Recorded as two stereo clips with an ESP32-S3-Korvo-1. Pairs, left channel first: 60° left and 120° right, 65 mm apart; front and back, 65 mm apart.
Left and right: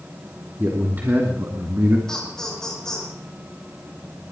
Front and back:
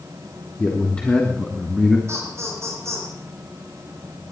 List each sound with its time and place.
0.6 s a man speaking: 65° right, 3 m; by 2.0 s 90° right, 1.9 m
2.1 s laughter: 140° left, 6.5 m